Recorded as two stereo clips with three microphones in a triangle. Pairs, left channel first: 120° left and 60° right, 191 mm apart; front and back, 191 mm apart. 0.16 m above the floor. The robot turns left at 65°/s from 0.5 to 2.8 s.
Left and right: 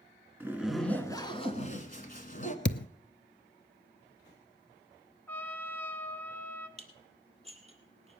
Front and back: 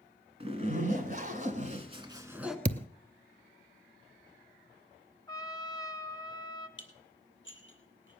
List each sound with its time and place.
0.4 s a zipper: 135° right, 1.3 m; by 2.5 s 90° left, 1.3 m
2.6 s a thud: 140° left, 0.5 m; by 2.9 s 130° left, 0.5 m
5.3 s a trumpet: 50° left, 1.1 m
6.8 s dishes clattering: straight ahead, 2.5 m